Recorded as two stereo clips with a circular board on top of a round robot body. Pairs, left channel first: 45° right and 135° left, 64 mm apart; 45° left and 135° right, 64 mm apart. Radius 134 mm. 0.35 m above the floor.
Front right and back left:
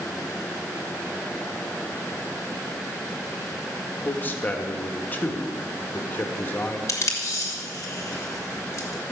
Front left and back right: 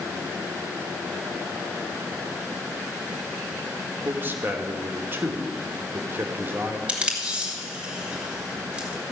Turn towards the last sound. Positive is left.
turn(degrees=-65)